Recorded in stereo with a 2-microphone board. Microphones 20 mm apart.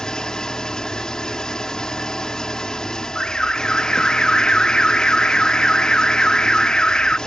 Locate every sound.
0.0 s an engine running: 40° left (ahead or behind)
3.1 s an alarm: 55° left (ahead or behind)